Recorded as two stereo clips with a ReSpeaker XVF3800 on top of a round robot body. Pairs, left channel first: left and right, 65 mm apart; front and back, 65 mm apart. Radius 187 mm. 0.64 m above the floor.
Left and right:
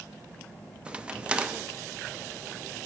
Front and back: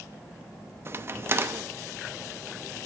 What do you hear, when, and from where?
0.8 s a crack: 155° right, 0.7 m